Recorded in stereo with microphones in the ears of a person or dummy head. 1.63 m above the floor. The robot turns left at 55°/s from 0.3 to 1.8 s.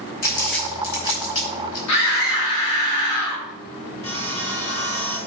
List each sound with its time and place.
0.2 s crumpling: 50° left (ahead or behind), 4.5 m; by 1.8 s 45° left (ahead or behind), 4.5 m
1.9 s a scream: 85° left, 3 m
4.0 s sawing: 30° left (ahead or behind), 2.5 m